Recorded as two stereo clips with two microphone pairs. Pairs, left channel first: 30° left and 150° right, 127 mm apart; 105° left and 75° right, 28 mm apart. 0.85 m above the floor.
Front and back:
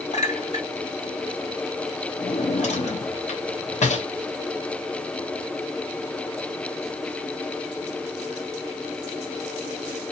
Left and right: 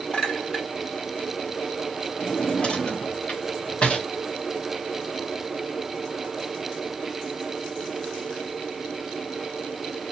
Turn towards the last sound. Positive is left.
turn(degrees=55)